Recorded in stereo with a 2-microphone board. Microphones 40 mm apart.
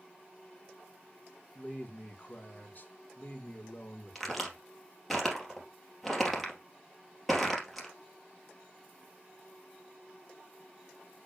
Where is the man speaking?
45° left (ahead or behind), 2.5 m.